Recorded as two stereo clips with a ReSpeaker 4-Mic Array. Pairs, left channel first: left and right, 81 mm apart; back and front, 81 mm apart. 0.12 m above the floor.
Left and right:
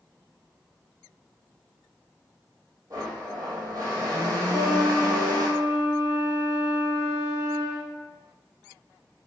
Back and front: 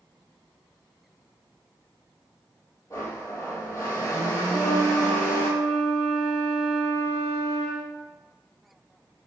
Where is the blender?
130° right, 0.9 m.